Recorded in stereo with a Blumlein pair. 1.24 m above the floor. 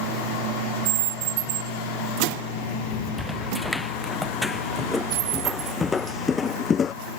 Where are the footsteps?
Straight ahead; by 7.0 s 20° left.